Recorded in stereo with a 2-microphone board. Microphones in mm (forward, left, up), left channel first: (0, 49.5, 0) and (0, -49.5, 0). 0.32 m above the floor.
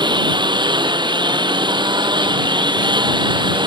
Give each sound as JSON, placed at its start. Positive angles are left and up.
{"t": 0.0, "sound": "a lawn mower", "side_deg": -50}